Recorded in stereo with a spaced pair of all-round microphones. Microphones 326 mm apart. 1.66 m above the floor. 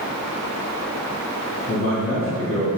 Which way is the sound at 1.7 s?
50° left (ahead or behind).